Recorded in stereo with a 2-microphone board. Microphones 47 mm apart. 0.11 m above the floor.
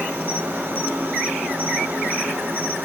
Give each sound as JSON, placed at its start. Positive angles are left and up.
{"t": 0.0, "sound": "an insect", "side_deg": -65, "distance_m": 2.5}